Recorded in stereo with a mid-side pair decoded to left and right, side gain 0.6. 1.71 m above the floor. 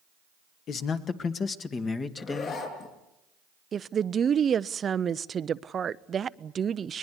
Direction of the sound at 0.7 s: 55° left.